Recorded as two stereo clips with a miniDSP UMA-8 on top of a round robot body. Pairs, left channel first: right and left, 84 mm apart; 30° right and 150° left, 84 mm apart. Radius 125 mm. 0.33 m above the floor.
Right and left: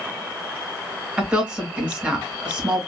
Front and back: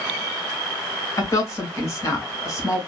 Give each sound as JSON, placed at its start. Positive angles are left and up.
{"t": 1.2, "sound": "a woman speaking", "azimuth_deg": 15, "distance_m": 1.8}